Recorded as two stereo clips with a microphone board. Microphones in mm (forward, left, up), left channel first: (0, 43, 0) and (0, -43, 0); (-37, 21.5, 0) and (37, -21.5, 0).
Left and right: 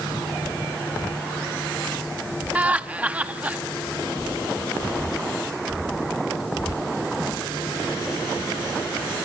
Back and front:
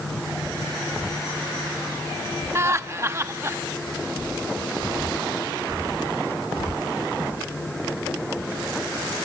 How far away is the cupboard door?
I don't hear a cupboard door.